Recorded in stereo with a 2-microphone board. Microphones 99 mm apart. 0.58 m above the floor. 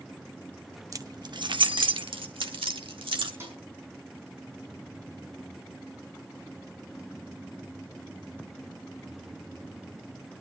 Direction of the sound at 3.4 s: 25° right (ahead or behind).